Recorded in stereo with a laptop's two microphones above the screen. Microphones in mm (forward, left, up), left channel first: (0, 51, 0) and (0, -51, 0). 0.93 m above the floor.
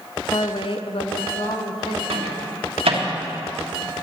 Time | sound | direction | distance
0.3 | a woman speaking | 35° left (ahead or behind) | 0.6 m
2.1 | a microwave | 80° right | 1.5 m